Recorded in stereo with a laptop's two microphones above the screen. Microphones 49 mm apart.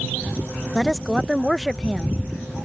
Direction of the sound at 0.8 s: 5° left (ahead or behind).